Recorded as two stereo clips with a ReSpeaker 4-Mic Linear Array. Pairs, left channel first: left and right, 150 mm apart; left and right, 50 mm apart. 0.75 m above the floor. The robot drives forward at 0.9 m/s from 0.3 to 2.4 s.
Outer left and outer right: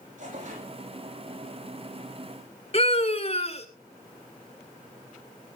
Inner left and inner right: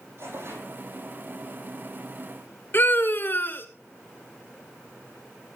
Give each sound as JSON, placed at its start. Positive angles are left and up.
{"t": 0.2, "sound": "tearing paper", "side_deg": -55, "distance_m": 7.5}
{"t": 2.7, "sound": "a scream", "side_deg": 45, "distance_m": 2.5}